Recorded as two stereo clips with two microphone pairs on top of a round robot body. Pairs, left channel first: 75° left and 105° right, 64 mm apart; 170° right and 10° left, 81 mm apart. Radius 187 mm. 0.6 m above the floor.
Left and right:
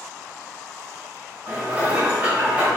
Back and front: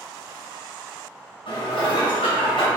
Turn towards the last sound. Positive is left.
turn(degrees=-170)